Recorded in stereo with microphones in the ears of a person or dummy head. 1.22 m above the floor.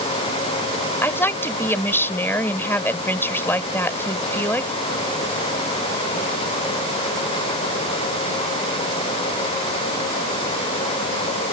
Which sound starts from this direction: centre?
A woman speaking, at 1.0 s.